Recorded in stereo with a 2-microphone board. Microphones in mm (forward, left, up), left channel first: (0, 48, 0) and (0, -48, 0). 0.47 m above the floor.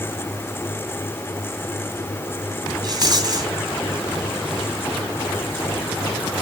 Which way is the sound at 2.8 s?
45° right (ahead or behind).